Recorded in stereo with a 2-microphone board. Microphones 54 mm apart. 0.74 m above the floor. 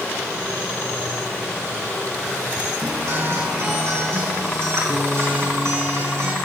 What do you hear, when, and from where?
2.8 s a guitar: 60° right (ahead or behind), 4.5 m